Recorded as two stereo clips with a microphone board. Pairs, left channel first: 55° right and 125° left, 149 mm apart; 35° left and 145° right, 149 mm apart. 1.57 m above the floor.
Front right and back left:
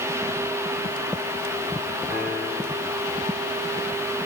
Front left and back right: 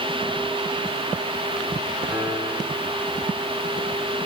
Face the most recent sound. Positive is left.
turn(degrees=130)